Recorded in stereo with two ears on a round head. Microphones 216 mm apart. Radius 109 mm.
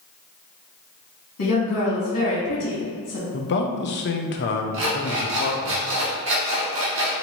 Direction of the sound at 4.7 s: 50° right (ahead or behind).